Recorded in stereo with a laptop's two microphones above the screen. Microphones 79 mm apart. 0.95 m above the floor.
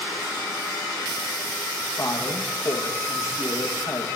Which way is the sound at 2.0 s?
40° left (ahead or behind).